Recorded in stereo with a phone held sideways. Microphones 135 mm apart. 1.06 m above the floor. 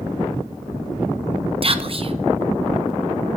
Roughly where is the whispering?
Right.